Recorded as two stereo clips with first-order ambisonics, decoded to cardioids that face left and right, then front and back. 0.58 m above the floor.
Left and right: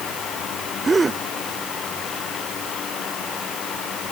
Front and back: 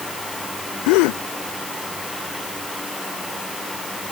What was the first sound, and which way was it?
A gasp, 15° right.